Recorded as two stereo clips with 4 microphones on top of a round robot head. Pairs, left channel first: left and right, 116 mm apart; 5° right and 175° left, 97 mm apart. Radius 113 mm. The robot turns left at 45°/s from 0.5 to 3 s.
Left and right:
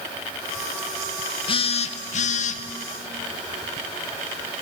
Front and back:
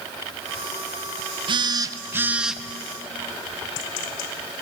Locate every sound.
1.5 s a phone buzzing: 135° left, 0.6 m; by 2.6 s 85° left, 0.6 m